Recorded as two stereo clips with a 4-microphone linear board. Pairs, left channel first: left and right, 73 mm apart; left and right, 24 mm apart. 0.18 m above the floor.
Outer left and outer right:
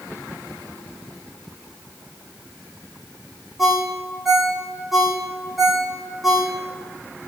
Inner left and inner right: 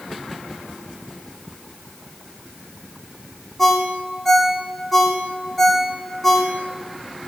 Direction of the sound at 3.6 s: Centre (ahead or behind).